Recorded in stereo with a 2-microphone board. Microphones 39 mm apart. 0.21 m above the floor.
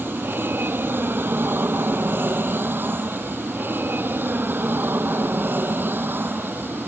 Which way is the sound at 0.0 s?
70° right (ahead or behind).